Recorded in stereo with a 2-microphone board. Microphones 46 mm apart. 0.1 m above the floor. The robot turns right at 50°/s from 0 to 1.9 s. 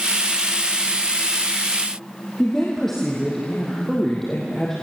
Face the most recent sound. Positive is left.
turn(degrees=10)  # may be behind; listen again after turning